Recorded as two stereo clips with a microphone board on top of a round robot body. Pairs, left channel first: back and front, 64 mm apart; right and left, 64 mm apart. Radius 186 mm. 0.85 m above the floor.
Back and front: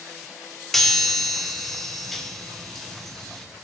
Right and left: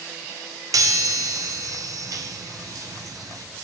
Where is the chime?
95° left, 0.5 m.